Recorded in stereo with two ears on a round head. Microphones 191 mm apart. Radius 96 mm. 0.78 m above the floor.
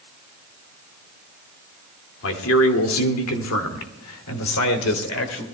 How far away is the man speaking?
About 2 m.